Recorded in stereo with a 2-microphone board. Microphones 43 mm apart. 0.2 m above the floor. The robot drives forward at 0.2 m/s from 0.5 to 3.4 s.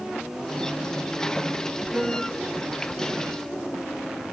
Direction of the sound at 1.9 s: 10° right (ahead or behind).